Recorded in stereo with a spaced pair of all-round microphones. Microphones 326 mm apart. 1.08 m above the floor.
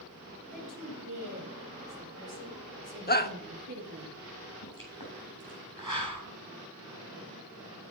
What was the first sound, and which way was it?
A woman speaking, 80° right.